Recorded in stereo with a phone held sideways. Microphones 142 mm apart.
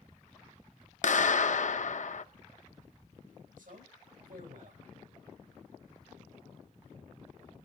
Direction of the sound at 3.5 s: 75° right (ahead or behind).